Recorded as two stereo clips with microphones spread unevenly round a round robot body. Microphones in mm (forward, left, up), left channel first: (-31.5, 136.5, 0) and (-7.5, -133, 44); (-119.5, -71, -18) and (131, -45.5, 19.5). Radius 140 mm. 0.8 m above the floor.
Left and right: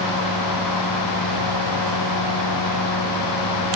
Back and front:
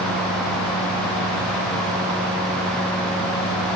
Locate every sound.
Only background noise.